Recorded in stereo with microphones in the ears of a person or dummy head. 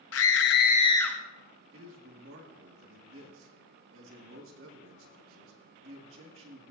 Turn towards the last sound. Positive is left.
turn(degrees=-85)